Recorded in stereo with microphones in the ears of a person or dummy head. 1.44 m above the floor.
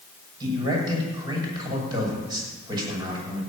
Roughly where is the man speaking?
Right.